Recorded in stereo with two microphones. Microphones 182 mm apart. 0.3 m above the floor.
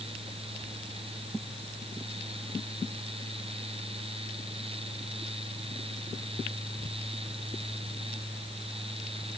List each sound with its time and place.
Only background noise.